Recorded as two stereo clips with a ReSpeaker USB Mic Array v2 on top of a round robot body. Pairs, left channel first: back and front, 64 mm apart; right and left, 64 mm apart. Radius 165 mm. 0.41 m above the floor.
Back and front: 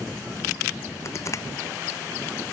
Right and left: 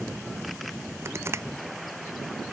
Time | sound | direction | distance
1.1 | crushing | 140° left | ?